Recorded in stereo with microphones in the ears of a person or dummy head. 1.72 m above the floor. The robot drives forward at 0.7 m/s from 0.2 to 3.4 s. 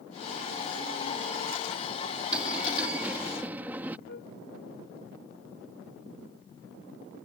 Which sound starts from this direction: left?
A flute, at 4.1 s.